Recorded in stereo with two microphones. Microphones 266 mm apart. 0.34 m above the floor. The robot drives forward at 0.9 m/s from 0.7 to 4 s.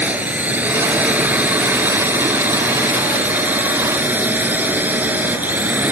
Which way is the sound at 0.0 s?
5° right (ahead or behind).